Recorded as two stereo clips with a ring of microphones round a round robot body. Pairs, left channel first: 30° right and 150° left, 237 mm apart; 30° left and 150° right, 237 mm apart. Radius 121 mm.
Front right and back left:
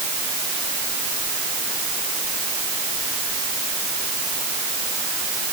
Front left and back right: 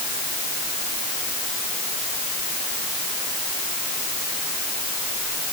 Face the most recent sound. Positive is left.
No sound to turn to.